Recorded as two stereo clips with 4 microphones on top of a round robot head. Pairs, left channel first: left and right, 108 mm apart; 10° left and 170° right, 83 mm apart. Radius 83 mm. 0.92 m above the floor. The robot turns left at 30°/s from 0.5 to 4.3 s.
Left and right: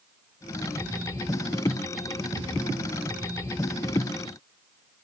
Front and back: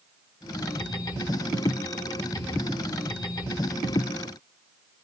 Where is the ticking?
I don't hear ticking.